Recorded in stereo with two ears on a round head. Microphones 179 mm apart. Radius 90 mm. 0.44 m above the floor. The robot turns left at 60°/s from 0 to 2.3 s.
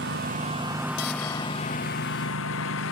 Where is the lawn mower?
115° right; by 2.9 s 105° left.